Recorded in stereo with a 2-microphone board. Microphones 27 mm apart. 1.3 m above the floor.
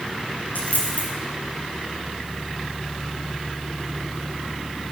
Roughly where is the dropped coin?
Left.